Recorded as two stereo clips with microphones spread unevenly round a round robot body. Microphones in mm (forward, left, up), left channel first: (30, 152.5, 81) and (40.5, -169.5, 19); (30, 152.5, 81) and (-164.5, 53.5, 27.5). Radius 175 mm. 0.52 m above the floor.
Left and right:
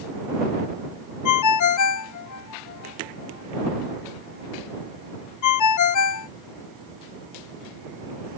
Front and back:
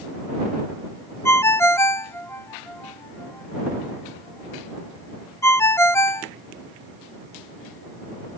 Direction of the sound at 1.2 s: 115° left.